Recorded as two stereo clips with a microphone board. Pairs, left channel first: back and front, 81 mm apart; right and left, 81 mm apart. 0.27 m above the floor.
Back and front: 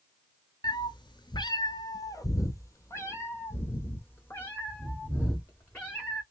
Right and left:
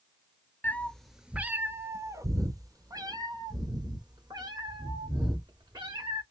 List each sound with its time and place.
0.6 s a cat meowing: 155° right, 0.5 m; by 6.2 s 110° left, 2.5 m